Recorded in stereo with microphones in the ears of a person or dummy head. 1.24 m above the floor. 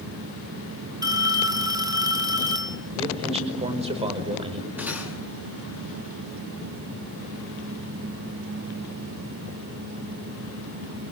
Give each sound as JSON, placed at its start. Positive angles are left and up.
{"t": 1.0, "sound": "a phone ringing", "side_deg": -15, "distance_m": 2.0}
{"t": 3.0, "sound": "a man speaking", "side_deg": -30, "distance_m": 5.0}
{"t": 4.8, "sound": "cutlery clinking", "side_deg": -5, "distance_m": 7.5}